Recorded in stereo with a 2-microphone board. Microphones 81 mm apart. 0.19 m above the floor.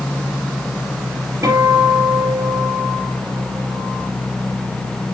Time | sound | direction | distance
1.4 | a guitar | 30° right (ahead or behind) | 3.5 m